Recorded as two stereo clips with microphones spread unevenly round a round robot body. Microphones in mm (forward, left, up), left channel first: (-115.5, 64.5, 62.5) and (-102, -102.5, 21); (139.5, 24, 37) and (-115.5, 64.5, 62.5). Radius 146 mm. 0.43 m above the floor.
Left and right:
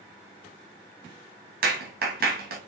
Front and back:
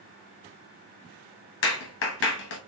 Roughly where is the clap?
Ahead right.